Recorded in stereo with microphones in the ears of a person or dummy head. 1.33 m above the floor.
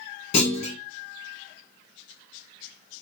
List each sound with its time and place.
0.3 s a clunk: 40° left (ahead or behind), 1.2 m